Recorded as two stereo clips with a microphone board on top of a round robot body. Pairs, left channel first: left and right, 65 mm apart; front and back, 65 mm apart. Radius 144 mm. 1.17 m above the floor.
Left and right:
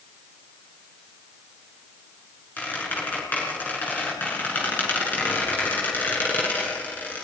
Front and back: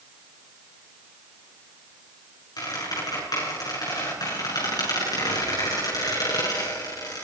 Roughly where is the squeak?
Ahead left.